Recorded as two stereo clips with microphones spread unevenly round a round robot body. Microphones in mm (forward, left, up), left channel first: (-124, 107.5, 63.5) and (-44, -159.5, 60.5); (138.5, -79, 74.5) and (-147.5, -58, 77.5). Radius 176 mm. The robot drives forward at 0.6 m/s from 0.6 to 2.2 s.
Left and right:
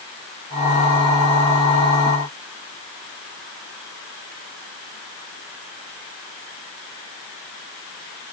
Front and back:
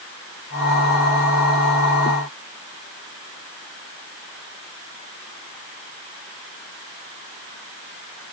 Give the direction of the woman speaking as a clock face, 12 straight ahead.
No woman speaking in this recording.